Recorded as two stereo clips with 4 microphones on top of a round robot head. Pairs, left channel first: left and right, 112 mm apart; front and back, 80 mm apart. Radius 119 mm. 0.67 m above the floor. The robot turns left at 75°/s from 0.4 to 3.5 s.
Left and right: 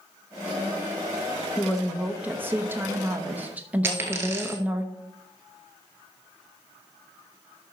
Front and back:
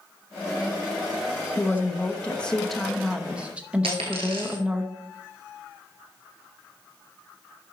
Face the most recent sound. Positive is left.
turn(degrees=-155)